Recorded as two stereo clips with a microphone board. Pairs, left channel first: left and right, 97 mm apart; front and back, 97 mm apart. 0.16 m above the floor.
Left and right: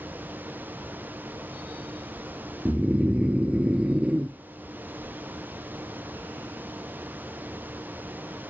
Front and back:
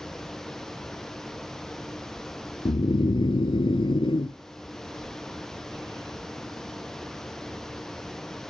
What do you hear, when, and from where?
2.6 s snoring: 15° right, 0.5 m